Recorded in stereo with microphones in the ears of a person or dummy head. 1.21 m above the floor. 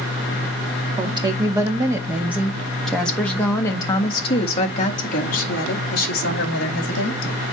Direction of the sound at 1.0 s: 20° right (ahead or behind).